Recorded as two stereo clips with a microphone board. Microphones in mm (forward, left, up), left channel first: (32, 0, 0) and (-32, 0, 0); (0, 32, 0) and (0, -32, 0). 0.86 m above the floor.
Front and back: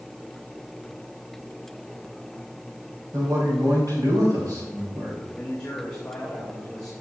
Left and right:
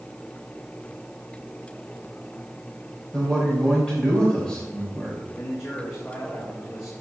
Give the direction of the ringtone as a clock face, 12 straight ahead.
No ringtone in this recording.